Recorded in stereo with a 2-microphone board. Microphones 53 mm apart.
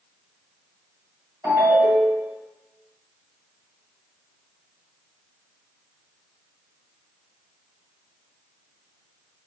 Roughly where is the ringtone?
Right.